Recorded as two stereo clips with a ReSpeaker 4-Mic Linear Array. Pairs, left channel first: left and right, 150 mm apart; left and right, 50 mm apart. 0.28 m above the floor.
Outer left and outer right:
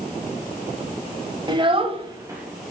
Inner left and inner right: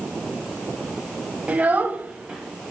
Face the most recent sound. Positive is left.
turn(degrees=-10)  # may be behind; listen again after turning